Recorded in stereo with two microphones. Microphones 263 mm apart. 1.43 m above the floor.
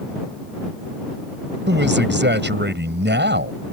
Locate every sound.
1.7 s a man speaking: 45° right (ahead or behind)